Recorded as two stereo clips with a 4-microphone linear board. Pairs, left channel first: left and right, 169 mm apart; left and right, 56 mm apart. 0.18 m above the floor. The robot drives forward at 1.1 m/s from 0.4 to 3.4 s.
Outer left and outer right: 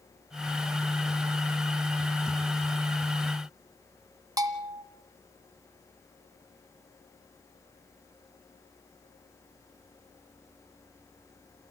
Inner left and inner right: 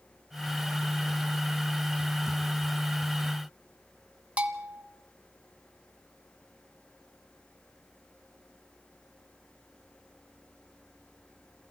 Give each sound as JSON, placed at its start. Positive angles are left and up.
{"t": 4.4, "sound": "a bell", "side_deg": -20, "distance_m": 1.8}